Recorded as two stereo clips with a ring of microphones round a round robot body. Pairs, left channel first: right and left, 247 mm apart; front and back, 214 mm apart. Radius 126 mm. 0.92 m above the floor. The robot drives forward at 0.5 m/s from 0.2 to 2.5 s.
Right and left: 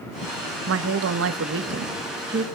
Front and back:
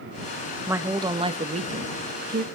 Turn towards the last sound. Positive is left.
turn(degrees=140)